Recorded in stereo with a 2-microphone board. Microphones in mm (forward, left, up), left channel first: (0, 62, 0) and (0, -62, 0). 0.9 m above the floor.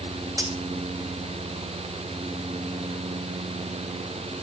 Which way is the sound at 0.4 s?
25° right (ahead or behind).